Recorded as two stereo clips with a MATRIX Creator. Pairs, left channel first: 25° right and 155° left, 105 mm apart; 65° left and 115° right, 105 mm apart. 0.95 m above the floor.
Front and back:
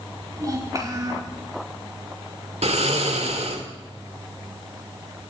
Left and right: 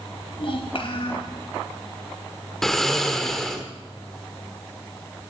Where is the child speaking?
100° left, 4 m.